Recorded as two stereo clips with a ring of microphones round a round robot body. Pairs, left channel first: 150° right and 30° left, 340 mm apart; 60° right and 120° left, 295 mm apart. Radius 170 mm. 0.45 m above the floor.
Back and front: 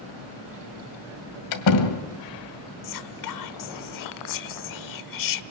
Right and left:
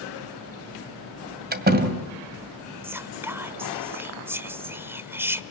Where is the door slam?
175° left, 2 m.